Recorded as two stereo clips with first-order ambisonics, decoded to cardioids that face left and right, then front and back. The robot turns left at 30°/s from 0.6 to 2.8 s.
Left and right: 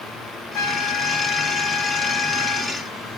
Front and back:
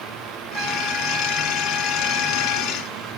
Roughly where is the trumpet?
Behind left.